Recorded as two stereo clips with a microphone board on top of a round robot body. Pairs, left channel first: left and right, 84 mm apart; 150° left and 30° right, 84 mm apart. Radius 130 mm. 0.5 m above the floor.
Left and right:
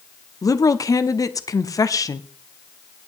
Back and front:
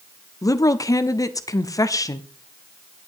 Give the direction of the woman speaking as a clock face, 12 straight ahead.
8 o'clock.